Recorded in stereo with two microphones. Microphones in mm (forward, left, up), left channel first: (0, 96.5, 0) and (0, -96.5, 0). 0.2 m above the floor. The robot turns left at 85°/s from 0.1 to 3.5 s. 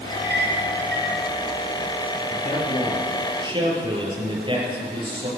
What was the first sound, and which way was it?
A clink, 40° right (ahead or behind).